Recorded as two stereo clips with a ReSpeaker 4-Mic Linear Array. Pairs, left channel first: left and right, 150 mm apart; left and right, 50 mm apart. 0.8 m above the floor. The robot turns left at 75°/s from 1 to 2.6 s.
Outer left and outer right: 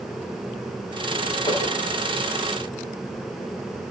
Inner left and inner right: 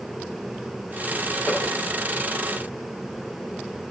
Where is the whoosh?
25° left (ahead or behind), 5.5 m; by 1.7 s 45° left (ahead or behind), 5.5 m.